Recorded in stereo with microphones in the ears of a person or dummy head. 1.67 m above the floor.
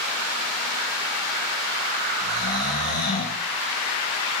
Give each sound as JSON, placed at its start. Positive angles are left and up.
{"t": 2.2, "sound": "snoring", "side_deg": 45, "distance_m": 4.5}